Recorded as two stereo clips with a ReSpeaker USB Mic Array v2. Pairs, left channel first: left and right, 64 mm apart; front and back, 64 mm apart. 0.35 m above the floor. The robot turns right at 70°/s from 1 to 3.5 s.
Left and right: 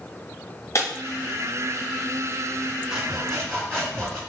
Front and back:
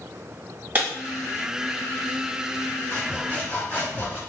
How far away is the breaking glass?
About 1.3 m.